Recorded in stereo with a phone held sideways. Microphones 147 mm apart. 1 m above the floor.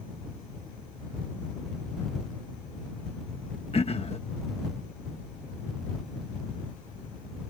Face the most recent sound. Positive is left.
turn(degrees=45)  # may be behind; listen again after turning